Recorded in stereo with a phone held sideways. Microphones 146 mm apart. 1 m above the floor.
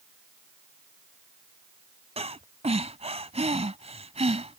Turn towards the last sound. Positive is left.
turn(degrees=-45)  # may be behind; listen again after turning